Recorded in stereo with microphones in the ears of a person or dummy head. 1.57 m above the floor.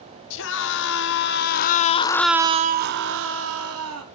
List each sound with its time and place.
0.3 s a scream: 70° left (ahead or behind), 2.0 m; by 4.0 s 80° right, 1.7 m